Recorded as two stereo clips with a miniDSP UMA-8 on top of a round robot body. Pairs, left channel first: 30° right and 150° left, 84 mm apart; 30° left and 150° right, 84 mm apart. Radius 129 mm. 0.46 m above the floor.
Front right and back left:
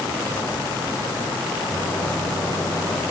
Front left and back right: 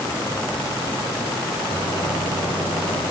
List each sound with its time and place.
1.7 s a microwave: 35° left, 8.5 m